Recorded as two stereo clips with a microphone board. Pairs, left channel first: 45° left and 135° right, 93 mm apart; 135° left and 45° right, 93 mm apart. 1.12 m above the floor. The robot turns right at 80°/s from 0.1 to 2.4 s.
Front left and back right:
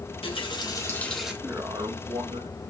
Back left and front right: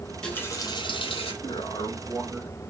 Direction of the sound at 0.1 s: 45° left.